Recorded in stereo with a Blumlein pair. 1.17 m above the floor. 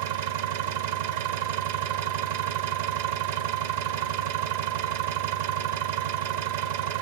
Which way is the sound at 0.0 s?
60° right.